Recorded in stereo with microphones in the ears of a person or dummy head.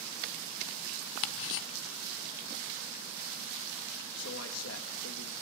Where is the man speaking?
80° left, 2 m.